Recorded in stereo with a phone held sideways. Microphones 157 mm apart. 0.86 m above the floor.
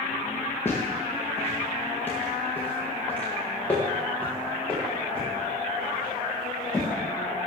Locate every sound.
0.7 s footsteps: 15° left (ahead or behind), 4.5 m; by 6.9 s 5° left (ahead or behind), 8 m